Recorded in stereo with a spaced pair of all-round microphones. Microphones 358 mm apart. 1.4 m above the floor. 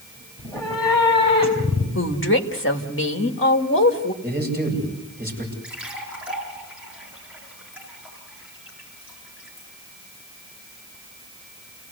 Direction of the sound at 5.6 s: 5° right (ahead or behind).